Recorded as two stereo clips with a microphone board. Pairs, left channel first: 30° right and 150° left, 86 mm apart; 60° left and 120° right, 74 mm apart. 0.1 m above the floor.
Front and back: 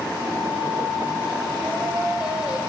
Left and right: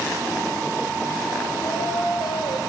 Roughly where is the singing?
Left.